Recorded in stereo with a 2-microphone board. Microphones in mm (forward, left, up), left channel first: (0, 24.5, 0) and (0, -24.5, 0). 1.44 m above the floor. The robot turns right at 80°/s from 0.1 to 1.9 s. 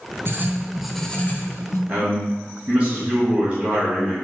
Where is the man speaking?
20° right (ahead or behind), 2.0 m.